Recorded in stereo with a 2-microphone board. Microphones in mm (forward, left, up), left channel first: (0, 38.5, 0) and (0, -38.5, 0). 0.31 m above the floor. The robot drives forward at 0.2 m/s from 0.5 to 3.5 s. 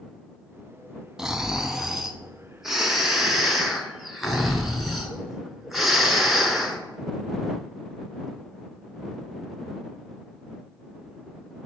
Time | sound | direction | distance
1.2 | snoring | 5° right (ahead or behind) | 0.6 m